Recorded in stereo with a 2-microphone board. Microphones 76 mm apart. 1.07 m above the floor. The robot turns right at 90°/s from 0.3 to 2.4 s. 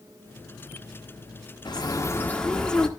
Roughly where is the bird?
Left.